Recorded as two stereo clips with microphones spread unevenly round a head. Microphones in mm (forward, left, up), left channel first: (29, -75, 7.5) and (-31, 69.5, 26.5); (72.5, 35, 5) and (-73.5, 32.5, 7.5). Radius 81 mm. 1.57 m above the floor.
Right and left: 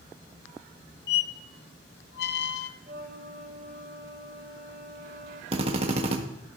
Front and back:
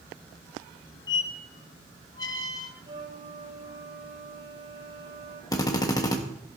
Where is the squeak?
60° right, 0.8 m.